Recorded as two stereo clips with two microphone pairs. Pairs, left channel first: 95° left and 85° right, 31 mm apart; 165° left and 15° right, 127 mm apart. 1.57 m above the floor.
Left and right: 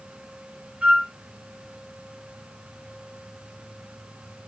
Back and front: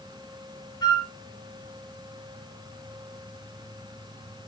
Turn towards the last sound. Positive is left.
turn(degrees=-135)